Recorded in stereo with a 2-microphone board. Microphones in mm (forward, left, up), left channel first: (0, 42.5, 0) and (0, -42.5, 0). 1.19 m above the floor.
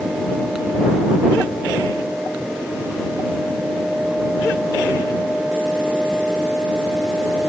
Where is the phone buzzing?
No phone buzzing in this recording.